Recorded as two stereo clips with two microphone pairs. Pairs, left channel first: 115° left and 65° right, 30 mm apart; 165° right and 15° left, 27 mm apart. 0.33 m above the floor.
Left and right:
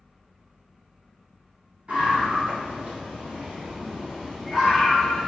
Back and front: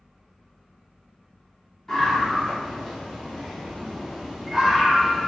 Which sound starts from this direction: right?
A scream, at 1.9 s.